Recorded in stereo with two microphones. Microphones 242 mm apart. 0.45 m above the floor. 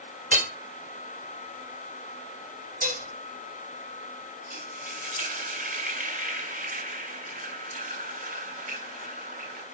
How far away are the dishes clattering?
About 1.6 m.